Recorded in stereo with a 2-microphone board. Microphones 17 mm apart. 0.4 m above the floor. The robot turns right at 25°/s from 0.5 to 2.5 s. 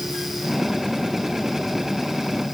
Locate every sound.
Only background noise.